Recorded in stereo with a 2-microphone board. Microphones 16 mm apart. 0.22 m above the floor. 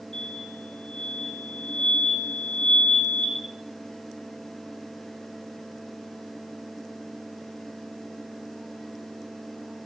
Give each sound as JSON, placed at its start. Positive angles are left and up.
{"t": 0.1, "sound": "an explosion", "side_deg": 85, "distance_m": 3.5}